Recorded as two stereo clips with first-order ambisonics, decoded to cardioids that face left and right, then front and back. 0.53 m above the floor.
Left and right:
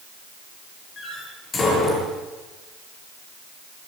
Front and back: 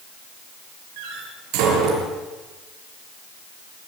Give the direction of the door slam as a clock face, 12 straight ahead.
7 o'clock.